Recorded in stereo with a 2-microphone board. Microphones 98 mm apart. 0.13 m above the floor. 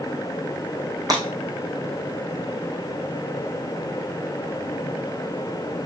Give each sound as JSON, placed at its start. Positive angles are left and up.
{"t": 1.1, "sound": "breaking glass", "side_deg": -40, "distance_m": 3.5}